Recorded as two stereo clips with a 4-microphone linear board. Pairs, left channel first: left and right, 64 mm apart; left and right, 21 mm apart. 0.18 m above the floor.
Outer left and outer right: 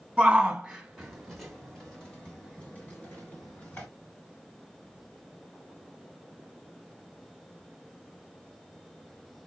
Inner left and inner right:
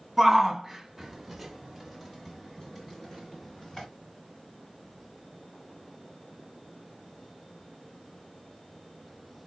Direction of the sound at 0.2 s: 15° right (ahead or behind).